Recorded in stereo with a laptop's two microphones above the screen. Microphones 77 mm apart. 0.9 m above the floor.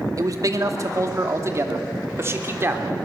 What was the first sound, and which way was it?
A man speaking, 50° right (ahead or behind).